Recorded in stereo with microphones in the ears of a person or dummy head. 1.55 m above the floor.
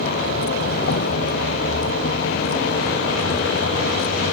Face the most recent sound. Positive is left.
turn(degrees=50)  # may be behind; listen again after turning